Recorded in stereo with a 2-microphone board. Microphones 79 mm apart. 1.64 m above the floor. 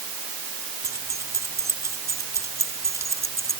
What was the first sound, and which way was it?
Keys jangling, 40° right (ahead or behind).